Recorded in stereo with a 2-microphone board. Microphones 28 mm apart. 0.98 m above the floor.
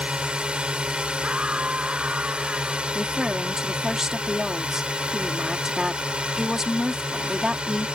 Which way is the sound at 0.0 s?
35° right (ahead or behind).